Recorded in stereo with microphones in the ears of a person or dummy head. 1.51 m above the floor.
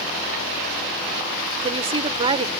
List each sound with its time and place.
1.6 s a woman speaking: 30° right (ahead or behind)